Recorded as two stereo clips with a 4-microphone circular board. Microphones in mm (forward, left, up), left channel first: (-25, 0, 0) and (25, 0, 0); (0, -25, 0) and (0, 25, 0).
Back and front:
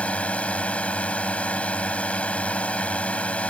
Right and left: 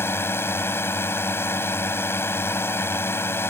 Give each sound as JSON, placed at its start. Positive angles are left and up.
{"t": 0.0, "sound": "a drone", "azimuth_deg": -120}